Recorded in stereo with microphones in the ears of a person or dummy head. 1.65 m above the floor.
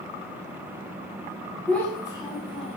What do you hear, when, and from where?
1.7 s a child speaking: 5° left (ahead or behind), 0.9 m; by 2.8 s 35° left (ahead or behind), 1.2 m